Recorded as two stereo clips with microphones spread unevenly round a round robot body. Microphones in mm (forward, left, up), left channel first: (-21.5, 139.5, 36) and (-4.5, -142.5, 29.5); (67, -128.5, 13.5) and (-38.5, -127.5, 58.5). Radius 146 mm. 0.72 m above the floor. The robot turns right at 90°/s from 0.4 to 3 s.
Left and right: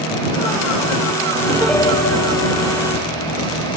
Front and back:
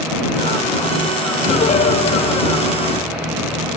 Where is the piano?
15° right; by 3.8 s 120° left.